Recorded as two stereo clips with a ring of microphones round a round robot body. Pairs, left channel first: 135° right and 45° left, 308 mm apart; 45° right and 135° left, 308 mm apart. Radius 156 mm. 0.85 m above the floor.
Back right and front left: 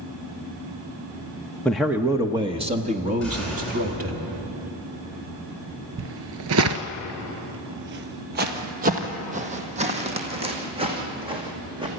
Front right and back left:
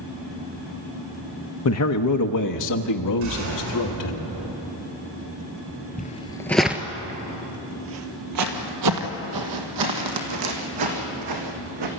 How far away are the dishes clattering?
No dishes clattering in this recording.